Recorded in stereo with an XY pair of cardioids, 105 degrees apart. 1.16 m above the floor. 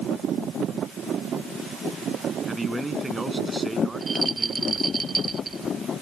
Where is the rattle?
25° right.